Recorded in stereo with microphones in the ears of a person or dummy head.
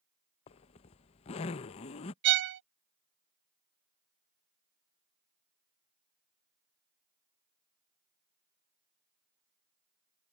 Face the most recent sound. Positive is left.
turn(degrees=-55)  # may be behind; listen again after turning